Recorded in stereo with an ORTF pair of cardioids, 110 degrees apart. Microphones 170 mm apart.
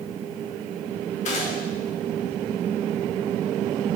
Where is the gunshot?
45° left, 1.7 m.